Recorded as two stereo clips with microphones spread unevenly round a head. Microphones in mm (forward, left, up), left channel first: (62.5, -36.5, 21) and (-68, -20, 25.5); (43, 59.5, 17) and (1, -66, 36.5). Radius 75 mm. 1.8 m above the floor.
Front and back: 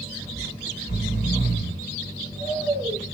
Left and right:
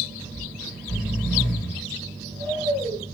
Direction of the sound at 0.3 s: 15° right.